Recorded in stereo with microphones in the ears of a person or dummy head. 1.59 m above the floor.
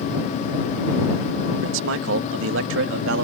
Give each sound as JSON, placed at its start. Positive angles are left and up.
{"t": 1.6, "sound": "a man speaking", "side_deg": -75}